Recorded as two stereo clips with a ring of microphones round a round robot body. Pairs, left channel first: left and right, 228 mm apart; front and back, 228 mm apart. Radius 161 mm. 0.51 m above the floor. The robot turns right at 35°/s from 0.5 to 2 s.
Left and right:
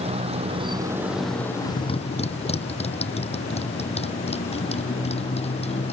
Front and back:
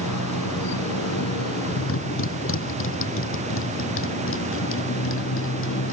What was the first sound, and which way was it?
A motorcycle, 25° right.